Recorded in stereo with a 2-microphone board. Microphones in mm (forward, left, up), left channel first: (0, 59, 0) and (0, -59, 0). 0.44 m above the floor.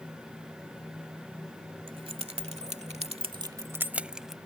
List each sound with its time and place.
1.9 s keys jangling: 45° right (ahead or behind); by 4.4 s centre (ahead or behind)